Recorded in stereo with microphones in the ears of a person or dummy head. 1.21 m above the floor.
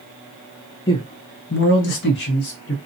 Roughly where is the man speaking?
Centre.